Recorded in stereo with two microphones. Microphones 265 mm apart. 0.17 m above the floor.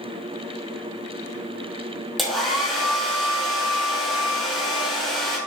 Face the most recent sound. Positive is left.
turn(degrees=0)  # may be behind; listen again after turning